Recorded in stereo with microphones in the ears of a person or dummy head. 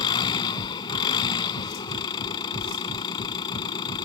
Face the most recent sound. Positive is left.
turn(degrees=25)  # may be behind; listen again after turning